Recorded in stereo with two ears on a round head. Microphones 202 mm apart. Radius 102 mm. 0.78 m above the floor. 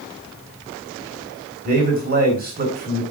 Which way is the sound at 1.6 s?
40° right (ahead or behind).